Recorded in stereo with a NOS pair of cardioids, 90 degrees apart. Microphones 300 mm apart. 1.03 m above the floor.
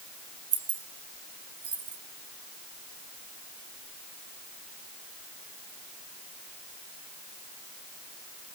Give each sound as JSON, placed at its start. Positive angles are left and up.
{"t": 0.5, "sound": "keys jangling", "azimuth_deg": -45, "distance_m": 2.0}